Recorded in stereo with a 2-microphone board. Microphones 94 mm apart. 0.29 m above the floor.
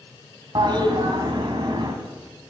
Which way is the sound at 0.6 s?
50° right (ahead or behind).